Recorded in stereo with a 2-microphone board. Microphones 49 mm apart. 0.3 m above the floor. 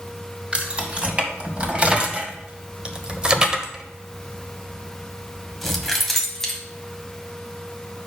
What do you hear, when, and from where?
0.5 s keys jangling: 25° right (ahead or behind), 1.9 m; by 6.6 s 10° left (ahead or behind), 1.8 m